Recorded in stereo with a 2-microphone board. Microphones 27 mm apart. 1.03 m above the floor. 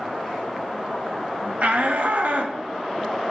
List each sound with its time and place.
1.6 s a shout: 60° right (ahead or behind), 1.1 m